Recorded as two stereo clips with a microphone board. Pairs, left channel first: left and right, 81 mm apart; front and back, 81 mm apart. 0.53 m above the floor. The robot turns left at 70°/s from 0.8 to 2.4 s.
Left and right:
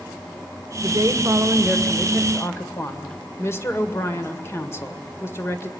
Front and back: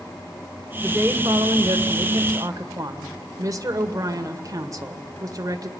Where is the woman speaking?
110° right, 2.0 m; by 5.7 s 140° left, 2.0 m.